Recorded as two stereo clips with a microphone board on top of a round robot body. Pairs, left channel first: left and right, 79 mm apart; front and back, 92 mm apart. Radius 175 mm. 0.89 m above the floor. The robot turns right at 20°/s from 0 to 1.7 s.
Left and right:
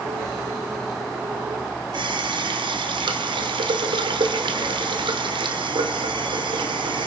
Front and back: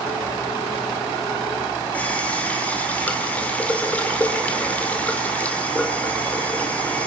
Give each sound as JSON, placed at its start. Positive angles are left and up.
{"t": 1.9, "sound": "a running tap", "azimuth_deg": -75, "distance_m": 1.9}